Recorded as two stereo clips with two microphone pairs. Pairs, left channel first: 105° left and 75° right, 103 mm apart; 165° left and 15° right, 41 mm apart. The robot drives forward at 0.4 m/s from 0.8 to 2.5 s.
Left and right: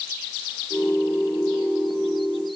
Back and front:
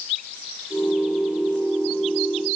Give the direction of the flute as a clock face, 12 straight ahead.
I don't hear a flute.